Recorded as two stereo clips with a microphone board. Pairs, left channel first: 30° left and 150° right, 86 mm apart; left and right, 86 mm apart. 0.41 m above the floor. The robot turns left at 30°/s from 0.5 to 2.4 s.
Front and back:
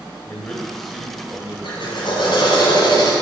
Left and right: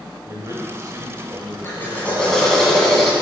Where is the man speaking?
45° right, 1.3 m; by 2.6 s 105° right, 1.3 m.